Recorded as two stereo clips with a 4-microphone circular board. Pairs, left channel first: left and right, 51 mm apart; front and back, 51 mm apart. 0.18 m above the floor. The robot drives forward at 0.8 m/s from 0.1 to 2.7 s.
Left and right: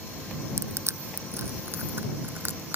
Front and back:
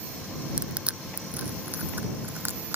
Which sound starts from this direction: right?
Crushing, at 0.6 s.